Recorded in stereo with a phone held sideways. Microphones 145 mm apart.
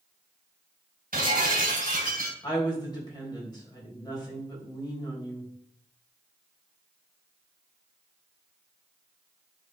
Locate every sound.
1.1 s breaking glass: 80° right, 2 m
2.4 s a woman speaking: 30° left (ahead or behind), 3.5 m